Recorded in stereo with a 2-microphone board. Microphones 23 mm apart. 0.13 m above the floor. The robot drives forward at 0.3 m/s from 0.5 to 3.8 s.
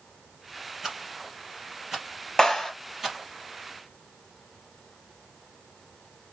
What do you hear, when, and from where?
0.8 s a rattle: 20° right (ahead or behind), 3 m; by 3.2 s 15° right (ahead or behind), 3.5 m
2.4 s a clap: 20° left (ahead or behind), 3 m